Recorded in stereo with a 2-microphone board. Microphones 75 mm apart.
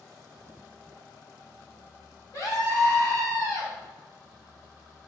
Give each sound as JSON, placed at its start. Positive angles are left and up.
{"t": 2.3, "sound": "a scream", "side_deg": 50, "distance_m": 1.8}